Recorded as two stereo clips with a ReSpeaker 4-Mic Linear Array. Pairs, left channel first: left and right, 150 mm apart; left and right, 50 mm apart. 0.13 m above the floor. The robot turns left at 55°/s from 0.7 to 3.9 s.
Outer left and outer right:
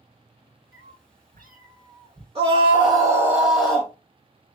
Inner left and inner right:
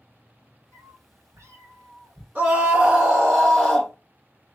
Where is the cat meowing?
65° right, 1.3 m; by 2.2 s 150° right, 1.3 m.